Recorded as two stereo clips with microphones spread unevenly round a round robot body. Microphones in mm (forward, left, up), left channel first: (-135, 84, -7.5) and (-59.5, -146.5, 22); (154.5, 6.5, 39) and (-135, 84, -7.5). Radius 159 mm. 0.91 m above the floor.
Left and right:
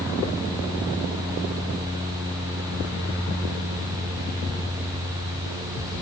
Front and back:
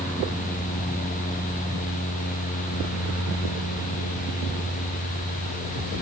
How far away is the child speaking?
No child speaking in this recording.